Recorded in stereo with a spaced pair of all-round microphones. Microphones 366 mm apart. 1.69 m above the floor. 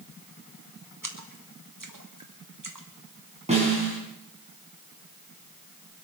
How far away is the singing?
No singing in this recording.